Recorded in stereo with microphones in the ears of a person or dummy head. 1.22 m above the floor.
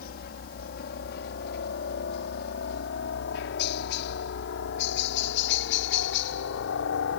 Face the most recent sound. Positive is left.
turn(degrees=65)  # may be behind; listen again after turning